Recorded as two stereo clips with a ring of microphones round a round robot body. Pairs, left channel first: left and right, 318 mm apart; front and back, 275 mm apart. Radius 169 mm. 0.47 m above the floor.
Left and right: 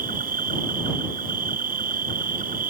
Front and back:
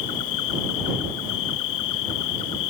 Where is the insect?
25° right.